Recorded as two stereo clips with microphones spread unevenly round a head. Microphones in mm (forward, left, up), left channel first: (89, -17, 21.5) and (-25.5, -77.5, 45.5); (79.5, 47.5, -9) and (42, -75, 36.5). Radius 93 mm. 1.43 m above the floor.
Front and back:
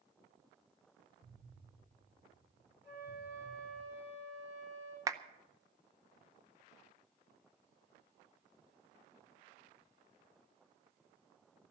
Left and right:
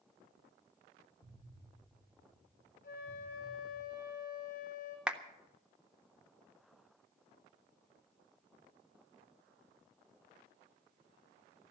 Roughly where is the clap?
Behind right.